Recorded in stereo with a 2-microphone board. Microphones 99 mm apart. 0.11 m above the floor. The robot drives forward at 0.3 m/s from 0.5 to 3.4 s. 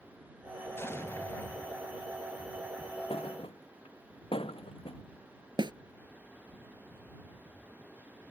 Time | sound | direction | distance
0.8 | an explosion | 25° left (ahead or behind) | ?
3.1 | a thud | 70° left (ahead or behind) | ?
5.6 | a snare drum | 50° right (ahead or behind) | ?